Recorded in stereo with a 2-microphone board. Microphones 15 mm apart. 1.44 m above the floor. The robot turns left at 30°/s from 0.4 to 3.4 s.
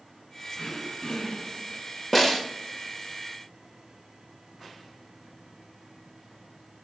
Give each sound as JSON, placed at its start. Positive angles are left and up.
{"t": 0.6, "sound": "throat clearing", "azimuth_deg": 95, "distance_m": 5.0}
{"t": 2.1, "sound": "a snare drum", "side_deg": 15, "distance_m": 1.5}